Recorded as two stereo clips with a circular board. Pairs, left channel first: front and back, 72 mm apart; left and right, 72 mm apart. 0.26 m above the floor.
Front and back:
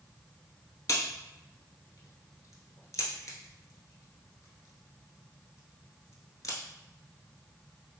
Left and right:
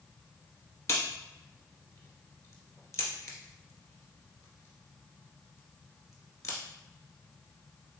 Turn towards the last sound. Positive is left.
turn(degrees=45)